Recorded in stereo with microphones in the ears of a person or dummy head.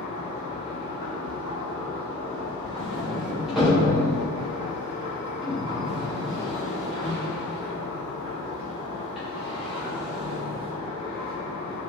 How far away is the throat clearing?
No throat clearing in this recording.